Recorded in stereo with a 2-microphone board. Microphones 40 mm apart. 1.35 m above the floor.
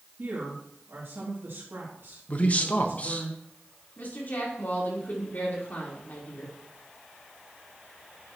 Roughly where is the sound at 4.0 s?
Left.